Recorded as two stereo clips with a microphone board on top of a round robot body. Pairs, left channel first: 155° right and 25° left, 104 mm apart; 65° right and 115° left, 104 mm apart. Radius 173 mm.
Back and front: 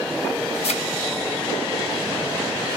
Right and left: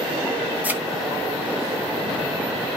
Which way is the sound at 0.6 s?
175° right.